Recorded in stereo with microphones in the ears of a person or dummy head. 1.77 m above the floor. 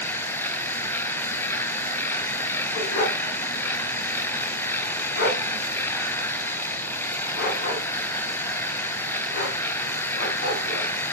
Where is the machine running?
10° left (ahead or behind), 0.9 m.